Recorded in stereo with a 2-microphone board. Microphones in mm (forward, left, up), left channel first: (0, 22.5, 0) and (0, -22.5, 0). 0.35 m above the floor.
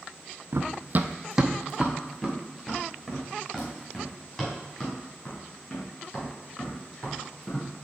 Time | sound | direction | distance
0.5 | running footsteps | 65° right (ahead or behind) | 0.7 m